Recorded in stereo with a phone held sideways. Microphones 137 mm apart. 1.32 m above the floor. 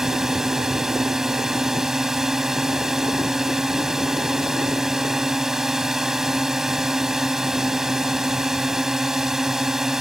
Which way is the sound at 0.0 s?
5° right (ahead or behind).